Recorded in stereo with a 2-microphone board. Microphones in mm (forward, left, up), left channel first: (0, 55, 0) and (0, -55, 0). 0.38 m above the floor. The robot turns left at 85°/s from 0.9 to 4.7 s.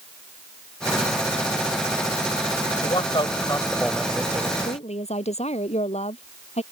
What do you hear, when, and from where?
2.8 s a man speaking: 100° left; by 4.5 s 45° right
4.6 s a woman speaking: 80° left; by 6.6 s 75° left (ahead or behind)